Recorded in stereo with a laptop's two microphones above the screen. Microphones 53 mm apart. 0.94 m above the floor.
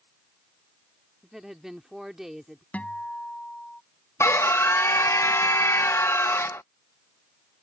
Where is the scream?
60° left (ahead or behind).